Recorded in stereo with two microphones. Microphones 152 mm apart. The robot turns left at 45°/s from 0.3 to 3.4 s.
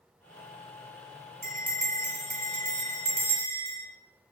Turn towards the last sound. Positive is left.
turn(degrees=-150)